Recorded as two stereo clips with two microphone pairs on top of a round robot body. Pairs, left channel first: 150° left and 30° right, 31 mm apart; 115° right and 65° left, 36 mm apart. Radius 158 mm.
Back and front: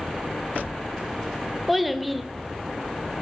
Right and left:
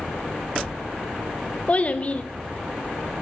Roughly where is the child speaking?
Right.